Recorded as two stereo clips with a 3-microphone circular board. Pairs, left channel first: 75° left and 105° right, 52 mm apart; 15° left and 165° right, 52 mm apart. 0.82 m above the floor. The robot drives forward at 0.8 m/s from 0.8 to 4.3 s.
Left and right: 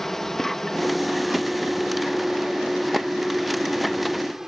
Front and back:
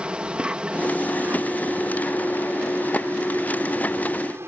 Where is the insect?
150° left; by 4.5 s 175° left.